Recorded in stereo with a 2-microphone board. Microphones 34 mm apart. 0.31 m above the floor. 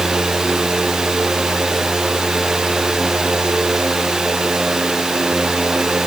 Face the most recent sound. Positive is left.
No sound to turn to.